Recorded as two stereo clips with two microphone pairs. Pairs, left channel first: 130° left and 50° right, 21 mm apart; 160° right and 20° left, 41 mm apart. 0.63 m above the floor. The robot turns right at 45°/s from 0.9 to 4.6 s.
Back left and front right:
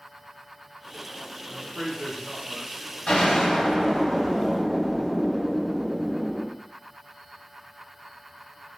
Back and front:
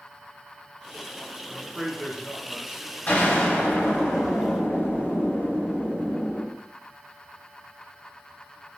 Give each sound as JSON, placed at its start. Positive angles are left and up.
{"t": 1.5, "sound": "a man speaking", "azimuth_deg": -10, "distance_m": 0.6}
{"t": 3.1, "sound": "an explosion", "azimuth_deg": 150, "distance_m": 1.4}